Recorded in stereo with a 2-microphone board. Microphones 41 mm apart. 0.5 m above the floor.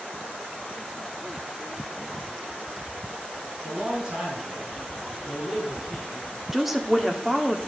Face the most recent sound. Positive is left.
turn(degrees=-5)  # may be behind; listen again after turning